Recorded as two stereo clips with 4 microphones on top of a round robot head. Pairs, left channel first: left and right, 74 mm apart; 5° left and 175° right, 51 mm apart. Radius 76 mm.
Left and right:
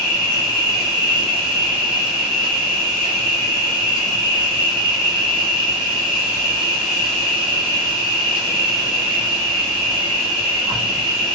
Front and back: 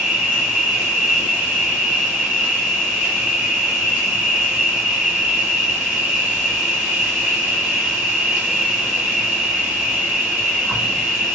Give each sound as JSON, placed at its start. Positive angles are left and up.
{"t": 0.0, "sound": "an insect", "azimuth_deg": -105, "distance_m": 1.5}